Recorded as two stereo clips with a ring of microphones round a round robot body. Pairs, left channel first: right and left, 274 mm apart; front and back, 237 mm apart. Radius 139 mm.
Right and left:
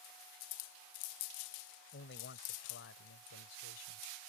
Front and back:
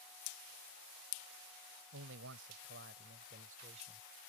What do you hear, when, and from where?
1.9 s a man speaking: 140° right; by 4.0 s 110° right